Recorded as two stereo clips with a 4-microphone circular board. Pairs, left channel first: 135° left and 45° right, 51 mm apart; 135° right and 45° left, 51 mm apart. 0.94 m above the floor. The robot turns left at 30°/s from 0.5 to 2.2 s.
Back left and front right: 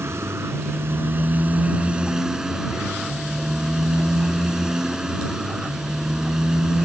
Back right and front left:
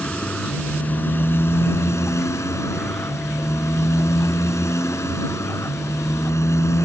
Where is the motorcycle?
70° right; by 6.9 s 120° right.